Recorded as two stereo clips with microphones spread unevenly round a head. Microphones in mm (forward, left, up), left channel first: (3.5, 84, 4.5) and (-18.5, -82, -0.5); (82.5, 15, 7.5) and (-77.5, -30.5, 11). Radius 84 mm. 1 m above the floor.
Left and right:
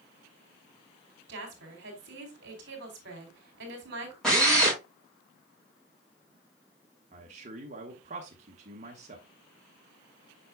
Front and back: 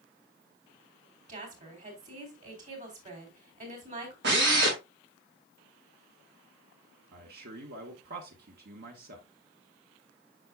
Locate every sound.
1.3 s a woman speaking: 120° right, 3 m
4.2 s a drill: 170° left, 4.5 m
7.1 s a man speaking: 140° right, 1.2 m